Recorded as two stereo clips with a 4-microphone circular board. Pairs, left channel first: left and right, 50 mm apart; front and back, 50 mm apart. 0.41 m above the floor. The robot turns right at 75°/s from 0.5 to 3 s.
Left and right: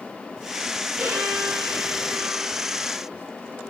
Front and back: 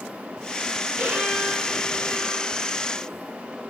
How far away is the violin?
About 5 m.